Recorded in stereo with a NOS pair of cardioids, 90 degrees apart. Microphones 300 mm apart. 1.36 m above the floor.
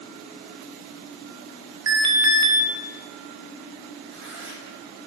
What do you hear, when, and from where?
1.9 s an alarm: 65° right, 3.5 m
4.1 s tearing paper: 40° right, 9.5 m